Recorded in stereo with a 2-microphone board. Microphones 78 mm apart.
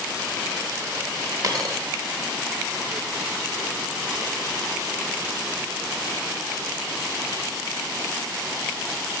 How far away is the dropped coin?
About 1.2 m.